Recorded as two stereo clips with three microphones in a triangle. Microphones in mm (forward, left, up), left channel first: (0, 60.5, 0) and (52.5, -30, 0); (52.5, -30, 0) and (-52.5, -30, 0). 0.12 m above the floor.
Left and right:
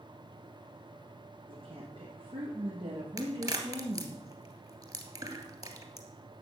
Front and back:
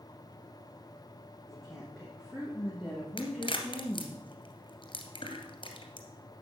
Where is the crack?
15° right, 2 m.